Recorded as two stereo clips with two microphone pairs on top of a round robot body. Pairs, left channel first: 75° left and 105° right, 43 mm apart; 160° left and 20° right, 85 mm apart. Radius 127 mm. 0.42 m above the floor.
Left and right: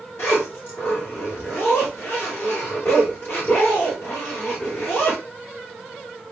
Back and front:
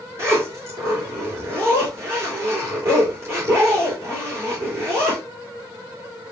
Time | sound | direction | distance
0.2 | a zipper | 40° left | 2.5 m